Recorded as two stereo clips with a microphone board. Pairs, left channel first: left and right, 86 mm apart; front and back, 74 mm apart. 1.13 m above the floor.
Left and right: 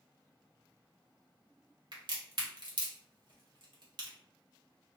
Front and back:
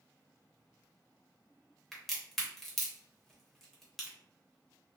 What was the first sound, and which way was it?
A crack, 85° right.